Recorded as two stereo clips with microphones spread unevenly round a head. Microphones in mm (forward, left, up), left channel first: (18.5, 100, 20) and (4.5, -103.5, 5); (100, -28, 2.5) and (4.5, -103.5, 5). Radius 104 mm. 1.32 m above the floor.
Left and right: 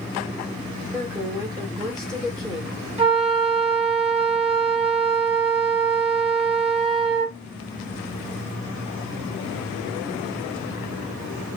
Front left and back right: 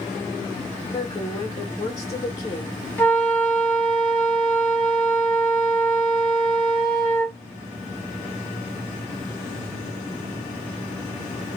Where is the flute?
35° right, 2 m.